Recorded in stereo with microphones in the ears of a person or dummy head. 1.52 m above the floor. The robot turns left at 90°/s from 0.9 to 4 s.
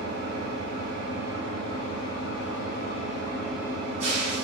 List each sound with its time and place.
0.0 s an engine running: 125° right, 1.0 m; by 4.5 s 45° right, 1.0 m